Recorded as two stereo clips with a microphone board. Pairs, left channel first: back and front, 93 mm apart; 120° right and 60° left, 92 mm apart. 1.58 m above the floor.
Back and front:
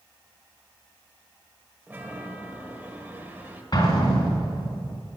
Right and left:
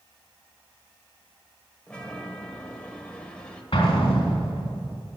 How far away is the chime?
About 1.5 m.